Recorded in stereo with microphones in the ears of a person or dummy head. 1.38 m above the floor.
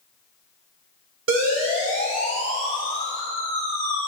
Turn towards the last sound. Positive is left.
turn(degrees=-85)